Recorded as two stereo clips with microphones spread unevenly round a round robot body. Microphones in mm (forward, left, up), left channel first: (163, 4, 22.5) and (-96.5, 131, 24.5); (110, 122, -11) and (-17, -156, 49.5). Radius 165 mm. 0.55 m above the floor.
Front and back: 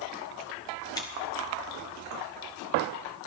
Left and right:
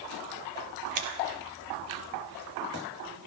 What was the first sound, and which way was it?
Scissors, 100° right.